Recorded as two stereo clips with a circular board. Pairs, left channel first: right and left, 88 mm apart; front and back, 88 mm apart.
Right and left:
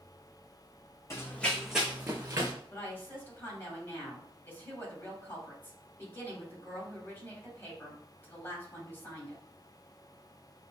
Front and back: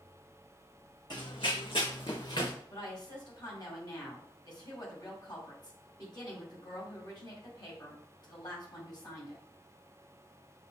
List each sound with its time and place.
1.1 s running footsteps: 35° right, 0.9 m; by 2.5 s 35° left, 1.4 m
2.7 s a woman speaking: 30° right, 1.7 m